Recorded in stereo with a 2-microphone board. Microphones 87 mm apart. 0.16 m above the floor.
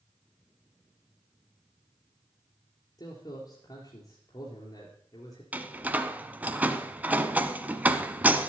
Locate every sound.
3.0 s a man speaking: 55° left (ahead or behind), 3 m
5.5 s a door slam: 20° right (ahead or behind), 1.0 m